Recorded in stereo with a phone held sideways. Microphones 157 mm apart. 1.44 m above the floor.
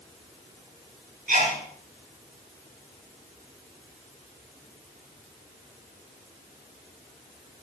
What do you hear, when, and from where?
1.3 s a sneeze: 70° right (ahead or behind), 7 m